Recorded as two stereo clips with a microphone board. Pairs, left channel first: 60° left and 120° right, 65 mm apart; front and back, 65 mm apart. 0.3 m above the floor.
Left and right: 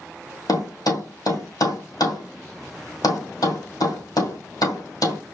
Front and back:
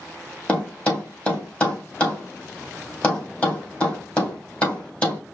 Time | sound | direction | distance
0.5 | a thud | 70° left | 2.5 m